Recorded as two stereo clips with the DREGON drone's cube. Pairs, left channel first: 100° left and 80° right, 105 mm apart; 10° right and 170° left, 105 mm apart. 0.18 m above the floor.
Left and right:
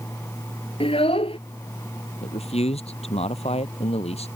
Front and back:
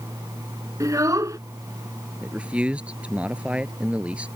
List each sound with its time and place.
0.8 s a child speaking: 115° left
2.2 s a man speaking: 90° left